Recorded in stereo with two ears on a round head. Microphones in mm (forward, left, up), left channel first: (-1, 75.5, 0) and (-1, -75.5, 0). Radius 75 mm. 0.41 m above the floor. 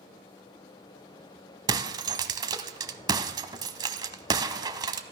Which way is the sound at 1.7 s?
25° right (ahead or behind).